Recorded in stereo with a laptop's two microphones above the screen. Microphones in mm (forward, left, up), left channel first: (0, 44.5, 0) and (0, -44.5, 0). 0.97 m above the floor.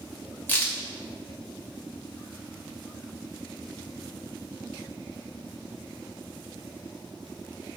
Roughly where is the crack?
Centre.